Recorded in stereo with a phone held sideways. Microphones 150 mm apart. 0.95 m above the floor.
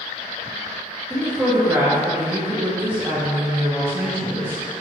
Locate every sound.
1.1 s a woman speaking: 15° right (ahead or behind), 0.5 m